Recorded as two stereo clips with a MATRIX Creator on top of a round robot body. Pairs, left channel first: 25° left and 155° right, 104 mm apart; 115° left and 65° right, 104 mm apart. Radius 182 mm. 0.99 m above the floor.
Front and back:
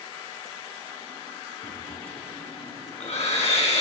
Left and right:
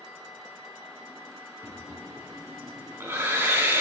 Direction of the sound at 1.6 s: Straight ahead.